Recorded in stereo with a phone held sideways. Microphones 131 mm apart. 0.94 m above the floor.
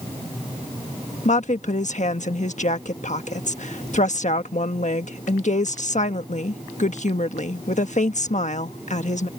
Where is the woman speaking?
65° left (ahead or behind).